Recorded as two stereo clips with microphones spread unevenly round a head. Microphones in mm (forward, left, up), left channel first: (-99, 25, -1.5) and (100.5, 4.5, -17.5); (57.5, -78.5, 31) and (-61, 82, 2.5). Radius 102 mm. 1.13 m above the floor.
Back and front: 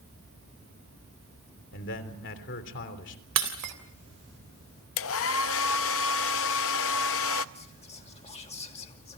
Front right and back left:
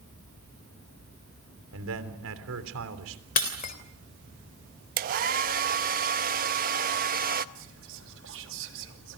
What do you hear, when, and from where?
1.7 s a man speaking: 145° left, 3.5 m
3.4 s breaking glass: 5° right, 3 m
5.0 s a hair dryer: 175° left, 0.7 m
7.5 s whispering: 115° left, 2.5 m